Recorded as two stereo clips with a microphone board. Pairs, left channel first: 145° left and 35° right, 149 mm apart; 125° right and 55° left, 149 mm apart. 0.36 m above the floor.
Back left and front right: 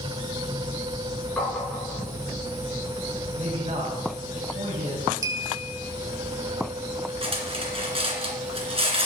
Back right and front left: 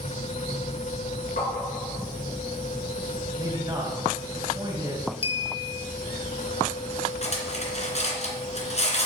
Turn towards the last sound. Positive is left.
turn(degrees=-85)